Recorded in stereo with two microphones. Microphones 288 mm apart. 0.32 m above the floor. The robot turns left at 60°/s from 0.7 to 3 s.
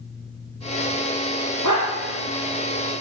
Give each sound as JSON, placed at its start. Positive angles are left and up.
{"t": 1.6, "sound": "a dog barking", "side_deg": 80, "distance_m": 4.0}